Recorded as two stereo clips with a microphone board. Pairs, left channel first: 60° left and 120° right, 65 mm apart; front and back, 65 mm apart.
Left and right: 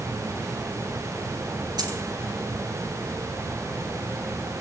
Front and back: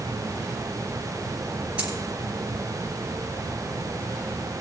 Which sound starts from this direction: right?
A dropped coin, at 1.8 s.